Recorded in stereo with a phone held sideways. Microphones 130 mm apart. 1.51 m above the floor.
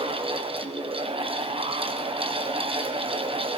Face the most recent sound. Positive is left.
turn(degrees=-45)  # may be behind; listen again after turning